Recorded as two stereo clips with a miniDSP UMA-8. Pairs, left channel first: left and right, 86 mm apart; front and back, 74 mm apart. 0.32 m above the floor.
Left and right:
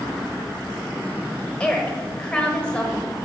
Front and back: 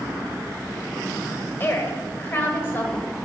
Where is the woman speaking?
25° left, 1.1 m.